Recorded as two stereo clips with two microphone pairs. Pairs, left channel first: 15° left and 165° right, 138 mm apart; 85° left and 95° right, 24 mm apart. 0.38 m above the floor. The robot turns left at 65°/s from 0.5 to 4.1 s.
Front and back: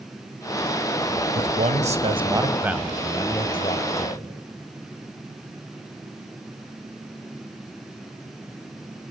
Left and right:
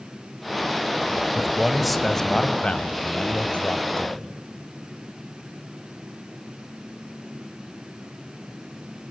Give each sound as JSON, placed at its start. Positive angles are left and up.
{"t": 1.4, "sound": "a man speaking", "azimuth_deg": -155, "distance_m": 1.8}